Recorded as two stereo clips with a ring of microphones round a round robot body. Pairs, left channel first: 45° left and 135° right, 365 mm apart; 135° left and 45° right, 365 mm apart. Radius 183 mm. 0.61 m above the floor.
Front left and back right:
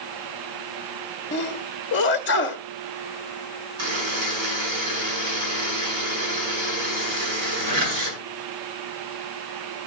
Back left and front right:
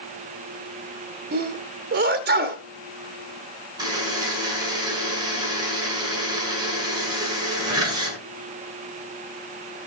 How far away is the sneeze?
About 0.8 m.